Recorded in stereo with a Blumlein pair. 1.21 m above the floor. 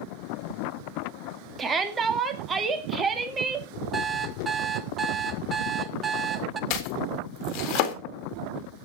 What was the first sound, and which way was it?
A shout, 20° right.